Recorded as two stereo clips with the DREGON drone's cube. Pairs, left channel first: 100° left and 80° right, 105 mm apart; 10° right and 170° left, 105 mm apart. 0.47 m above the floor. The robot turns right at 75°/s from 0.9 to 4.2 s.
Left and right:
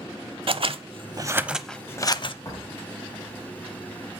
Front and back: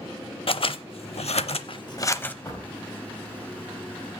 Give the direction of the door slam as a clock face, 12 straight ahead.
10 o'clock.